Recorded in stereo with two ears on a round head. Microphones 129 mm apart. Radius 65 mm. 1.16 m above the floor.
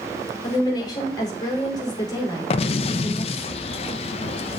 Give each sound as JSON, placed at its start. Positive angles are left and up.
{"t": 0.4, "sound": "a woman speaking", "side_deg": 25, "distance_m": 4.0}
{"t": 2.5, "sound": "an explosion", "side_deg": 40, "distance_m": 0.6}